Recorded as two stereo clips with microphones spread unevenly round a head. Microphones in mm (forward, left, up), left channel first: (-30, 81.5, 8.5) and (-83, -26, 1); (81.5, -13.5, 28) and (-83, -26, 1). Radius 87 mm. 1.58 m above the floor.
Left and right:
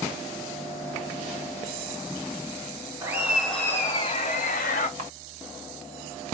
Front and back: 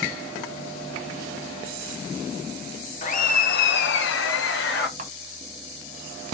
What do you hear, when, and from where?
3.0 s laughter: 40° right, 1.1 m; by 4.9 s 40° left, 0.9 m
5.0 s a camera shutter: 125° right, 1.3 m